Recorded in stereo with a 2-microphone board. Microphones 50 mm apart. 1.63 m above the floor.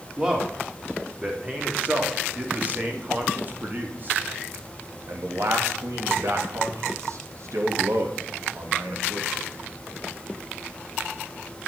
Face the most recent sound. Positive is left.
turn(degrees=-85)